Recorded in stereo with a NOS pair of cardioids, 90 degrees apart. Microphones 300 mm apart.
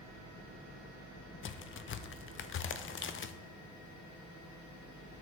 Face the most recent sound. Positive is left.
turn(degrees=40)